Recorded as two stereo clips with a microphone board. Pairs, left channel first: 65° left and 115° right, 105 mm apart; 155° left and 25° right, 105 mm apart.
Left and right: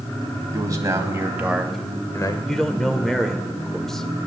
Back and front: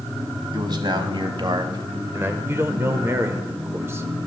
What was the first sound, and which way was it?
A man speaking, 60° right.